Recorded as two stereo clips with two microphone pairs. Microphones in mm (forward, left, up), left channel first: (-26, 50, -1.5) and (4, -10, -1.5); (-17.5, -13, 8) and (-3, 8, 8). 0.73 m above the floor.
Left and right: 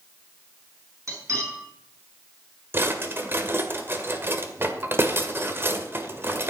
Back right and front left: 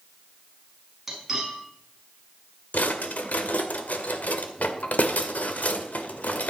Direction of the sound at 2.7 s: 120° right.